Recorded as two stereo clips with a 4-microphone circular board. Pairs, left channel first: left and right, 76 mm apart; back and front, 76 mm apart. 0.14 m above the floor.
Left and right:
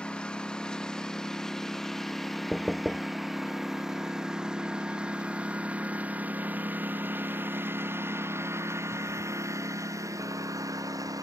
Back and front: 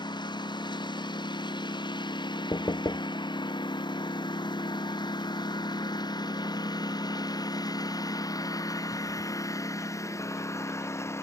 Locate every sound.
0.0 s a lawn mower: 170° left; by 11.2 s 130° right
2.5 s knocking: straight behind